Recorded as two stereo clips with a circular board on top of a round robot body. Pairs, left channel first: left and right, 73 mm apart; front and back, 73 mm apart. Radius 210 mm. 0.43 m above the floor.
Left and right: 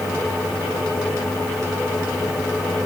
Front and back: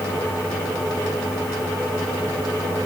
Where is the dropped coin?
I don't hear a dropped coin.